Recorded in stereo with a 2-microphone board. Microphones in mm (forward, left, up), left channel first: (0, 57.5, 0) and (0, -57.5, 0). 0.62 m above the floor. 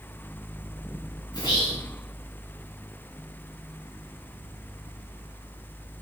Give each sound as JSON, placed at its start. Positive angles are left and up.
{"t": 1.3, "sound": "whispering", "side_deg": 40, "distance_m": 2.5}